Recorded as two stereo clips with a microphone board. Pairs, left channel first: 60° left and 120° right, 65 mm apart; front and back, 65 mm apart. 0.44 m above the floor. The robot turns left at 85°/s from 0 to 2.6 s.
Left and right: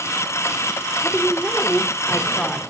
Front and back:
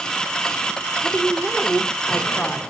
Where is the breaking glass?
I don't hear breaking glass.